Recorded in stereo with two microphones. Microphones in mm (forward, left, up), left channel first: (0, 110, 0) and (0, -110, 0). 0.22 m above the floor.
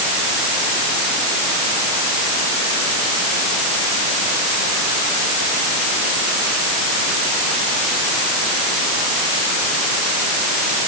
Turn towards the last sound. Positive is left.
No sound to turn to.